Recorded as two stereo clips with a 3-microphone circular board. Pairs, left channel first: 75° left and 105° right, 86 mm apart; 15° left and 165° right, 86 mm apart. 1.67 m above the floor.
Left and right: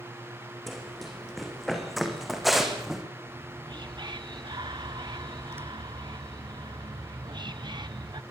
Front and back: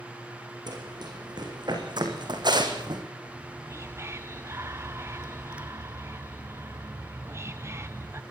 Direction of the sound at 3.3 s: 115° right.